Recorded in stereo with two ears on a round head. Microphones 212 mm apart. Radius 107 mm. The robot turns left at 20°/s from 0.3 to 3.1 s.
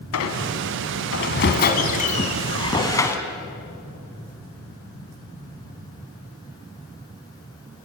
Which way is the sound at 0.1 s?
70° left.